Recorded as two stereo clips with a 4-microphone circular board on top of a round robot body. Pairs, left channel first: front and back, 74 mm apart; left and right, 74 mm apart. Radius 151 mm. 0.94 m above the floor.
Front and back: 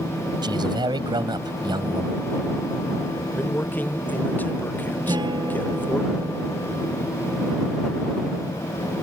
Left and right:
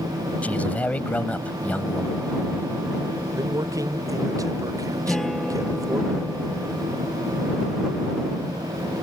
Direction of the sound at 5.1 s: 175° left.